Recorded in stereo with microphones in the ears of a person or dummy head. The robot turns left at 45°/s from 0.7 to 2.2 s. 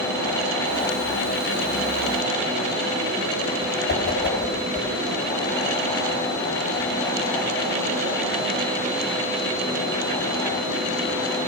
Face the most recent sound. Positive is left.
turn(degrees=55)  # may be behind; listen again after turning